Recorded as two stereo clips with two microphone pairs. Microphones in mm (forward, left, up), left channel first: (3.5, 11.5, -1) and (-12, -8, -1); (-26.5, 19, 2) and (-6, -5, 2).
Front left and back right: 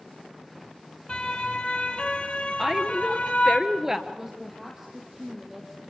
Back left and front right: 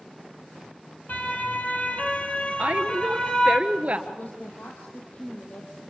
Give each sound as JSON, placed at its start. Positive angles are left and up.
{"t": 1.1, "sound": "a siren", "azimuth_deg": 105, "distance_m": 2.5}
{"t": 2.6, "sound": "a woman speaking", "azimuth_deg": -55, "distance_m": 1.5}
{"t": 4.1, "sound": "a woman speaking", "azimuth_deg": 160, "distance_m": 3.0}